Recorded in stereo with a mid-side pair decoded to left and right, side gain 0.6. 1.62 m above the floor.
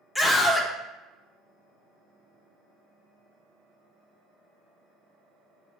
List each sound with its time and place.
0.1 s a scream: 15° left, 0.9 m